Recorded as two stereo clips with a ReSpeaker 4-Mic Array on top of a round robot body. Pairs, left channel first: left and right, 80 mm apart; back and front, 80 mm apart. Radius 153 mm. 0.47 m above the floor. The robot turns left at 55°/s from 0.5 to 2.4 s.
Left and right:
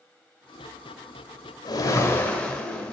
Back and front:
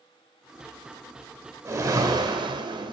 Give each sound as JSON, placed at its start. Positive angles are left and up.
{"t": 1.6, "sound": "a whoosh", "azimuth_deg": 55, "distance_m": 2.0}